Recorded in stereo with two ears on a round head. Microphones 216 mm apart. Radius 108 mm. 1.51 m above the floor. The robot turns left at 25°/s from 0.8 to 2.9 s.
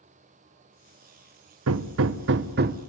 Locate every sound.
1.7 s hammering: 65° right (ahead or behind), 0.9 m; by 2.8 s 40° right (ahead or behind), 0.9 m